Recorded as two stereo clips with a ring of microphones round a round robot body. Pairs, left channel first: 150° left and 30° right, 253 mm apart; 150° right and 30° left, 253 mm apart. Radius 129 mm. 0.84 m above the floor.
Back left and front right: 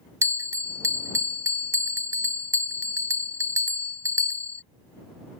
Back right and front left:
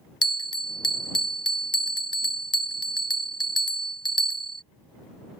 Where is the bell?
100° right.